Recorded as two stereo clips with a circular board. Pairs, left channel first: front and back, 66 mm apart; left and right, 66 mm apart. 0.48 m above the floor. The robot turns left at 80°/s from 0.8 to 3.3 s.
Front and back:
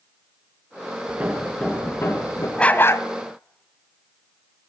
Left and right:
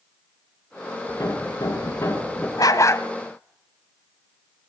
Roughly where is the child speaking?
I don't hear a child speaking.